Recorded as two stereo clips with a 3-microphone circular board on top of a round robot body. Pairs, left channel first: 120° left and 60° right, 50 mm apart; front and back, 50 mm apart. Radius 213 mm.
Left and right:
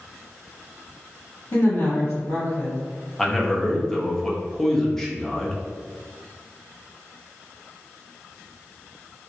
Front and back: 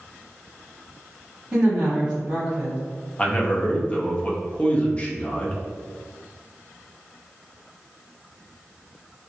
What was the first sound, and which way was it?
A woman speaking, 115° left.